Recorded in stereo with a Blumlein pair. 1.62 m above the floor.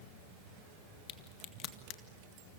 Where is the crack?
30° left, 1.9 m.